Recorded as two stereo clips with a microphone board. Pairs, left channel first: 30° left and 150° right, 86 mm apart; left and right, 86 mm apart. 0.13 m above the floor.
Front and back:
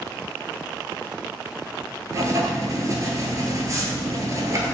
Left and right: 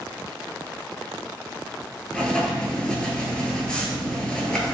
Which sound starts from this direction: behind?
Writing, at 2.1 s.